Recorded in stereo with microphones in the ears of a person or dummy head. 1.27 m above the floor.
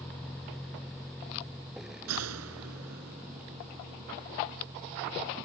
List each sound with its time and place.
0.0 s a vehicle: 5° left (ahead or behind); by 5.5 s 10° right (ahead or behind)
2.1 s a gunshot: 90° right